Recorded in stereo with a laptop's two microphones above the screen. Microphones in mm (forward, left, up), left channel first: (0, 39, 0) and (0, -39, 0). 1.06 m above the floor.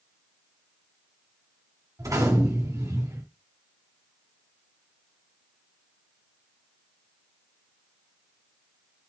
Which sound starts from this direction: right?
A gunshot, at 2.0 s.